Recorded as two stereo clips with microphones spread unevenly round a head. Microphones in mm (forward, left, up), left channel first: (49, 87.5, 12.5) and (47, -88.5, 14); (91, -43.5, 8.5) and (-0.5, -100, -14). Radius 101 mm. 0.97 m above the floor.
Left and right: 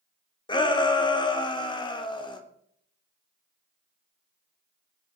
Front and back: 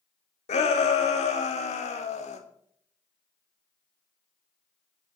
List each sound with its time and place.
0.5 s a shout: 25° left, 3 m